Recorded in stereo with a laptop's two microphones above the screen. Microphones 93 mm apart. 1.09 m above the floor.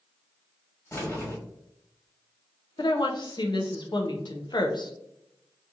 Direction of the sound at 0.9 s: 25° left (ahead or behind).